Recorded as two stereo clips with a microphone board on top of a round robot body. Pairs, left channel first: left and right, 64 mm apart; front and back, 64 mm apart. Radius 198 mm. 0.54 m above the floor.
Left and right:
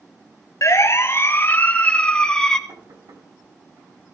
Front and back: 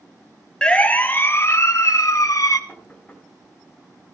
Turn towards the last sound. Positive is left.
turn(degrees=-70)